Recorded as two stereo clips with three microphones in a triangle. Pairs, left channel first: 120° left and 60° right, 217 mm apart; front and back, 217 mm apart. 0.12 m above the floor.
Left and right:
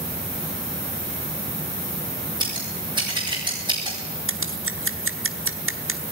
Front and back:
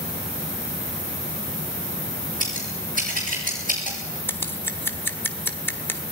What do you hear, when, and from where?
2.4 s scissors: 130° right, 7 m
4.3 s scissors: 80° right, 1.1 m